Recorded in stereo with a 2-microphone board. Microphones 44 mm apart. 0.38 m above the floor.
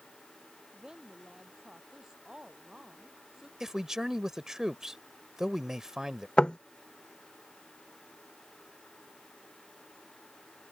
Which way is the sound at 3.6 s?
10° right (ahead or behind).